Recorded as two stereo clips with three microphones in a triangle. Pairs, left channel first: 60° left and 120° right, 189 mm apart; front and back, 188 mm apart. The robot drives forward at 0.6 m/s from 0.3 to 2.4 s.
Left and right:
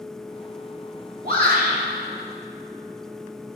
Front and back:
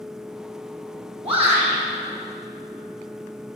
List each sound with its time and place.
1.2 s a shout: 130° right, 1.9 m; by 1.8 s 135° right, 2 m